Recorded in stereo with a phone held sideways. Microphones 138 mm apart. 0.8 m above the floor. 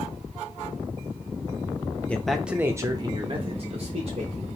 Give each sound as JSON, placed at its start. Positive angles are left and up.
{"t": 2.1, "sound": "a man speaking", "side_deg": 10, "distance_m": 0.6}